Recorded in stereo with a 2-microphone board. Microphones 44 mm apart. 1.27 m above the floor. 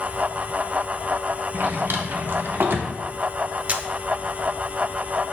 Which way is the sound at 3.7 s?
35° right (ahead or behind).